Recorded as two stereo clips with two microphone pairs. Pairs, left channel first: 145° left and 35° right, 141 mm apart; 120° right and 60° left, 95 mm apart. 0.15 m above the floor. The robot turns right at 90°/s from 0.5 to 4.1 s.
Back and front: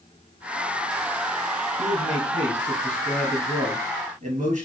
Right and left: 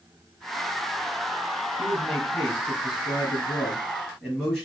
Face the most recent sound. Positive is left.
turn(degrees=-35)